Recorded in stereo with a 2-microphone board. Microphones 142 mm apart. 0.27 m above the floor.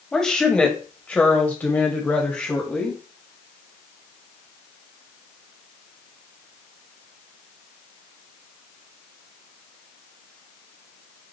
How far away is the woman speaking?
About 1.7 m.